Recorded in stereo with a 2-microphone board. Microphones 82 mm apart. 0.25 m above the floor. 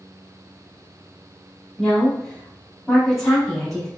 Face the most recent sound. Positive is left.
turn(degrees=5)  # may be behind; listen again after turning